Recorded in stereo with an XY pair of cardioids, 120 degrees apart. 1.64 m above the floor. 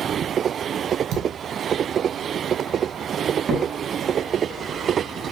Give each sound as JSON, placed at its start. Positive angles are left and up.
{"t": 1.1, "sound": "a thud", "azimuth_deg": -65, "distance_m": 7.5}
{"t": 3.5, "sound": "a crack", "azimuth_deg": -35, "distance_m": 6.0}